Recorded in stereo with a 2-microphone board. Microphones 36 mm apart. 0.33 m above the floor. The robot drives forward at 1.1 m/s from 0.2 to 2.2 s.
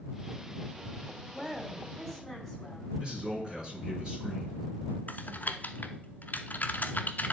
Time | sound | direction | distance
1.3 | a woman speaking | 15° left (ahead or behind) | 1.5 m
3.0 | a man speaking | 15° right (ahead or behind) | 3.5 m
5.1 | typing on a keyboard | 50° left (ahead or behind) | 0.6 m